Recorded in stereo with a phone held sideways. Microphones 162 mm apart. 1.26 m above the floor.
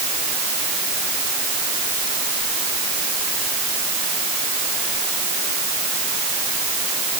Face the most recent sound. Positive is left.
No sound to turn to.